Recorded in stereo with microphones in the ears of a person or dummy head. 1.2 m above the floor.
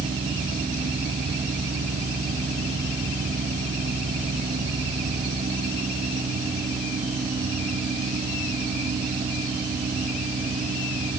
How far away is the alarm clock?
No alarm clock in this recording.